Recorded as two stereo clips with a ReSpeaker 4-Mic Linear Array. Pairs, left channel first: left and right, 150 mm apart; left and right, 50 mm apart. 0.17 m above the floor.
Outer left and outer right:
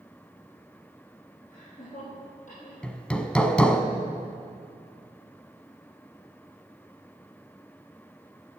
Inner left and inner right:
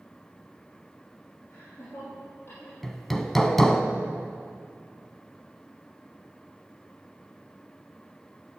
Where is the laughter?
60° left (ahead or behind), 5 m; by 2.7 s 55° left (ahead or behind), 5.5 m.